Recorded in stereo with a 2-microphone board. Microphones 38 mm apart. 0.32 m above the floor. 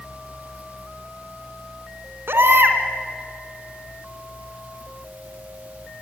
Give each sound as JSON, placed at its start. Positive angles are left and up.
{"t": 2.3, "sound": "a baby crying", "side_deg": -75, "distance_m": 2.5}